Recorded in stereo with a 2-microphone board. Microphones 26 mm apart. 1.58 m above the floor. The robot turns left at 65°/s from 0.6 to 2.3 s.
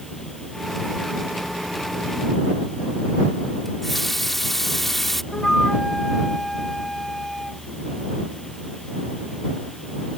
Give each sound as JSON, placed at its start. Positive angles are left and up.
{"t": 3.6, "sound": "a running tap", "side_deg": 10}
{"t": 5.3, "sound": "a flute", "side_deg": 15}